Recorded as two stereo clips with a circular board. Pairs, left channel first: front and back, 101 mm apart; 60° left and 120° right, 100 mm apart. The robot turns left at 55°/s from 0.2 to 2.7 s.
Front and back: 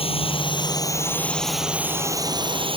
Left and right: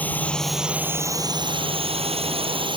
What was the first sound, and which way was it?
A drone, 15° right.